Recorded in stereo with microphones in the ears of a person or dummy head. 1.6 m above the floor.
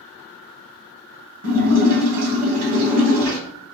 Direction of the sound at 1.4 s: 50° right (ahead or behind).